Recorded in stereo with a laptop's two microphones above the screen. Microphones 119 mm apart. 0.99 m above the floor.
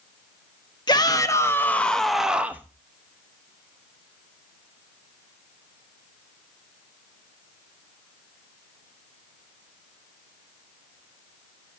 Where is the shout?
35° left (ahead or behind), 1.3 m; by 2.7 s 15° right (ahead or behind), 1.1 m.